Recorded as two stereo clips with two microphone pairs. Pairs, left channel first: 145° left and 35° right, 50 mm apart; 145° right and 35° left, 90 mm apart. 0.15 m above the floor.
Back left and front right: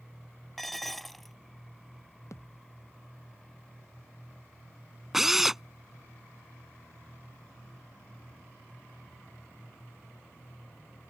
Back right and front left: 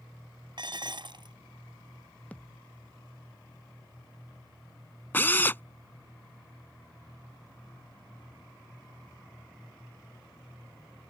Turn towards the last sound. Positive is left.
turn(degrees=-110)